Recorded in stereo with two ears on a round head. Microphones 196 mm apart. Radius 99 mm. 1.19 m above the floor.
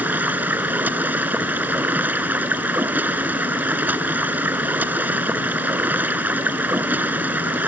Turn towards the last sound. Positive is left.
turn(degrees=-10)  # may be behind; listen again after turning